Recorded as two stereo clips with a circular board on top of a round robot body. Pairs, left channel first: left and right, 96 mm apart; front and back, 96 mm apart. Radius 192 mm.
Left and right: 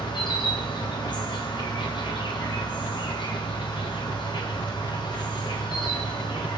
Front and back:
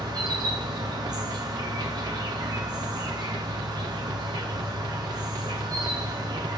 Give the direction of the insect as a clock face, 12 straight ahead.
8 o'clock.